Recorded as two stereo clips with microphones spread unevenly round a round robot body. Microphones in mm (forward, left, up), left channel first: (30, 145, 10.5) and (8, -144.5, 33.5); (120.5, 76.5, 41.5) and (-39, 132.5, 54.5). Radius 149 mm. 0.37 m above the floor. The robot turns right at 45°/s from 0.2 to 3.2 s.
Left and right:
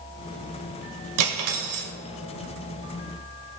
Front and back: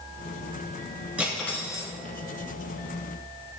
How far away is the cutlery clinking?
About 0.9 m.